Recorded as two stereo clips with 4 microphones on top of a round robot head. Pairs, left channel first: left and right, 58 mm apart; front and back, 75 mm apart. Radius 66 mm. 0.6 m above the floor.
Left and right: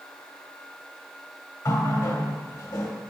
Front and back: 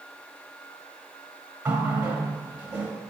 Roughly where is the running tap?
Left.